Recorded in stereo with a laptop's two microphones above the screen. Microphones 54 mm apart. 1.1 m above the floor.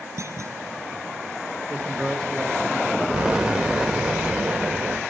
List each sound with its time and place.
0.2 s a clunk: 65° right (ahead or behind), 2.5 m
1.7 s a man speaking: 5° left (ahead or behind), 1.9 m
3.1 s an explosion: 15° right (ahead or behind), 2.0 m